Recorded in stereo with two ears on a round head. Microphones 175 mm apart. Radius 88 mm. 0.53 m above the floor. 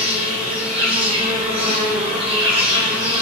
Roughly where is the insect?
Right.